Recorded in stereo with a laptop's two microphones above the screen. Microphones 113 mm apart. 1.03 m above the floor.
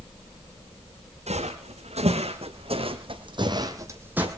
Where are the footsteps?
75° right (ahead or behind), 4 m; by 4.3 s 10° right (ahead or behind), 2 m.